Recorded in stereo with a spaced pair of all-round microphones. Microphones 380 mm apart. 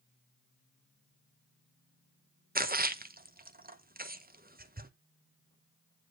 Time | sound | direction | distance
2.5 | a splash | 25° right (ahead or behind) | 0.7 m